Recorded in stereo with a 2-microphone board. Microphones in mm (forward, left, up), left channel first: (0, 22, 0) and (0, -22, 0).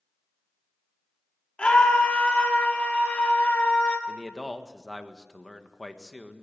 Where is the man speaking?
5° left (ahead or behind), 1.5 m.